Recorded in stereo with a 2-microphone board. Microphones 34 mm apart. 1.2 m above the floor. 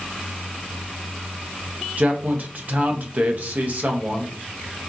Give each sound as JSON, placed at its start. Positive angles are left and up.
{"t": 2.0, "sound": "a man speaking", "side_deg": -50, "distance_m": 0.9}